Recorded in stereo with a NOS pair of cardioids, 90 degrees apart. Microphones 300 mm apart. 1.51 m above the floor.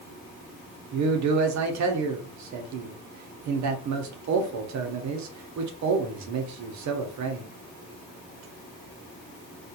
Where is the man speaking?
70° right, 1.0 m.